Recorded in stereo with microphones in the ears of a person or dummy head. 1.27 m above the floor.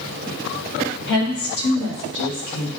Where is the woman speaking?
60° left (ahead or behind), 1.4 m; by 2.7 s 45° left (ahead or behind), 1.8 m.